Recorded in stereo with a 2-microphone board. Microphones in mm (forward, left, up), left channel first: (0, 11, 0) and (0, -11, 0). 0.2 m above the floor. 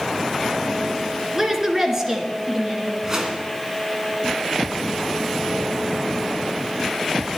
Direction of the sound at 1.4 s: 20° right (ahead or behind).